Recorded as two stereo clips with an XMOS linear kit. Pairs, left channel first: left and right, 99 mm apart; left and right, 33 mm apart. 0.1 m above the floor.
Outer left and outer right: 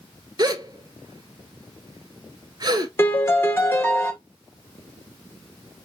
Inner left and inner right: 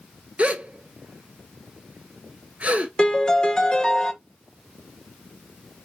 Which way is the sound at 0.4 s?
45° right (ahead or behind).